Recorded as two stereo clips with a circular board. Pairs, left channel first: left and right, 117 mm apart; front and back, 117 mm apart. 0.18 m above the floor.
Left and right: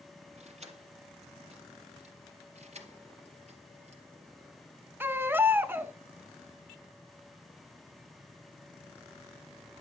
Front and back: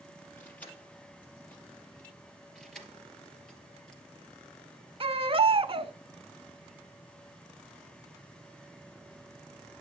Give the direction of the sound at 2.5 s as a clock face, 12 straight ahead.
3 o'clock.